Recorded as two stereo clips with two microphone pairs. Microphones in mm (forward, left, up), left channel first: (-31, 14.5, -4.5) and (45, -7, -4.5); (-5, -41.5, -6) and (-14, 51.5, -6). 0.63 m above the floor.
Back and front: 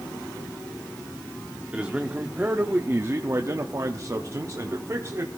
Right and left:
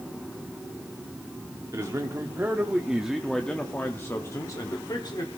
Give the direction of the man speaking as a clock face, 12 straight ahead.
10 o'clock.